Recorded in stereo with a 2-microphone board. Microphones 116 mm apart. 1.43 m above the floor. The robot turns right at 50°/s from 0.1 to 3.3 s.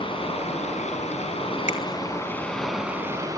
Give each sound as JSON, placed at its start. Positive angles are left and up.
{"t": 0.0, "sound": "running water", "azimuth_deg": 50, "distance_m": 5.0}
{"t": 1.7, "sound": "a finger snap", "side_deg": 80, "distance_m": 2.5}